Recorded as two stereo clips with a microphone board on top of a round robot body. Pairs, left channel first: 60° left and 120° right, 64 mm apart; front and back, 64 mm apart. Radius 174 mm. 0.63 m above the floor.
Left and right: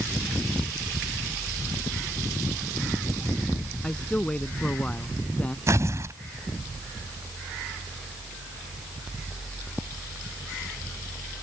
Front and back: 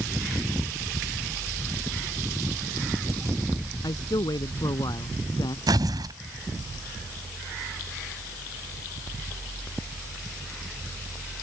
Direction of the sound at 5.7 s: 160° right.